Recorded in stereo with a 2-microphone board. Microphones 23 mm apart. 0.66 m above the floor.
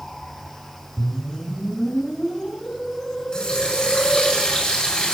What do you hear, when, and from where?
1.0 s a whoosh: 50° left (ahead or behind), 1.7 m
3.3 s a running tap: 30° left (ahead or behind), 5 m